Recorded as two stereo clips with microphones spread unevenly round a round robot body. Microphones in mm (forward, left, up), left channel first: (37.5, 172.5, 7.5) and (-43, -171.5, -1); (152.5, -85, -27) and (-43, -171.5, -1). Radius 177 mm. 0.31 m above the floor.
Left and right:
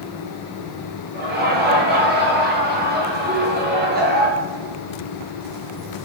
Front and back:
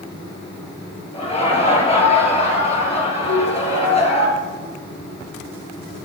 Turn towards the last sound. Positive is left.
turn(degrees=-5)